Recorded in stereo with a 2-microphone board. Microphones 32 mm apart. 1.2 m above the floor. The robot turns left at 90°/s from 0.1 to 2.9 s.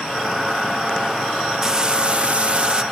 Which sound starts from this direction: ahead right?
Frying, at 1.6 s.